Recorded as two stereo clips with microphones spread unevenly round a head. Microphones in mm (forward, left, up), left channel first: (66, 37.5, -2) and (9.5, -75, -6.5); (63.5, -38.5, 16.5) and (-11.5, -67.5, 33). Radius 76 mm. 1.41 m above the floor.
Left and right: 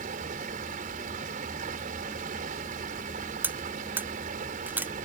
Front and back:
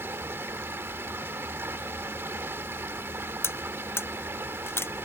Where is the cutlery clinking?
40° right.